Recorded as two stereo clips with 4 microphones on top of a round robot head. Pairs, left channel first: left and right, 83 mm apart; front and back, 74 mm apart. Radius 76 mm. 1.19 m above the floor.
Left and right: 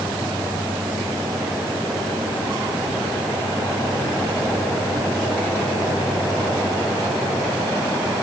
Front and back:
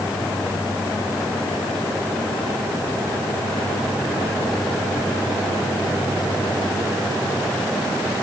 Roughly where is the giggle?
No giggle in this recording.